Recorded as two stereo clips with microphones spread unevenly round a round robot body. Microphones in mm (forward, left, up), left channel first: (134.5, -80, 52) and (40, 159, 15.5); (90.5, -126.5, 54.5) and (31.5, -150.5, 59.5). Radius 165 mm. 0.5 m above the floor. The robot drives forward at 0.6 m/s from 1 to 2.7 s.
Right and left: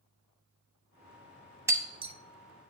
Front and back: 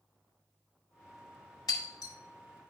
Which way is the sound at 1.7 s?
30° left.